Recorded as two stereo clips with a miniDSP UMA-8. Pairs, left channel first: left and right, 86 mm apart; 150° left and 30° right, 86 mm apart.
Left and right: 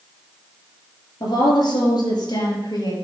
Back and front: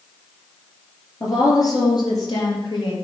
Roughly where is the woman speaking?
Left.